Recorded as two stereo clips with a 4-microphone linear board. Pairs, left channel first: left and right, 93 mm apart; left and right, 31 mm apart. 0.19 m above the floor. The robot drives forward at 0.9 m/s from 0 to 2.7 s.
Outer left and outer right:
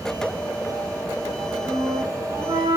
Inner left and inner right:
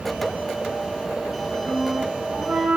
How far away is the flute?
About 5.5 m.